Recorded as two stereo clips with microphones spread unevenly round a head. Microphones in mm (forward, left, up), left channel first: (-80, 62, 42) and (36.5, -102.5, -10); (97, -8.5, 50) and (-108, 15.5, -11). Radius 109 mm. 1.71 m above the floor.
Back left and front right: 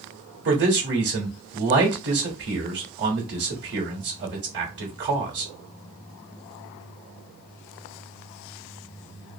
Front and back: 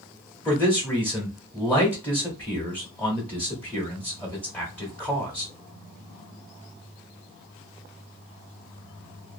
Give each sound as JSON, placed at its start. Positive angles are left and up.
{"t": 0.5, "sound": "a man speaking", "azimuth_deg": -90, "distance_m": 0.9}